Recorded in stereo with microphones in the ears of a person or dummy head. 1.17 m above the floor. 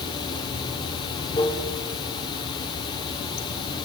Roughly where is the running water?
Left.